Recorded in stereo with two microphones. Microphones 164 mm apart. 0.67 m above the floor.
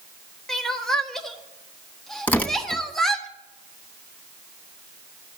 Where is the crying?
Centre (ahead or behind), 1.0 m.